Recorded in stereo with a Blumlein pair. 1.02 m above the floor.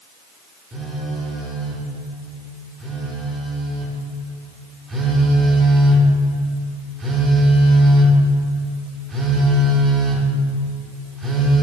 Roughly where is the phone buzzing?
Ahead.